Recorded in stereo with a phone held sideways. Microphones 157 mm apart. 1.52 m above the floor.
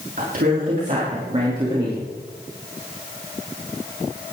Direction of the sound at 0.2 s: 60° right (ahead or behind).